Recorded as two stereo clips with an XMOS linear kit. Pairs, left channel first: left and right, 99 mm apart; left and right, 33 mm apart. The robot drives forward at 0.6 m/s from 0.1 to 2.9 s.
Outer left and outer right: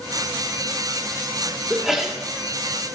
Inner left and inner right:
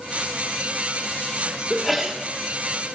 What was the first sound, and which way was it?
A sneeze, 5° right (ahead or behind).